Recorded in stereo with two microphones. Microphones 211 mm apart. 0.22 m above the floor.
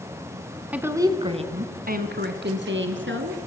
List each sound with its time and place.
0.7 s a woman speaking: 5° right (ahead or behind), 1.9 m; by 3.4 s 70° right (ahead or behind), 3 m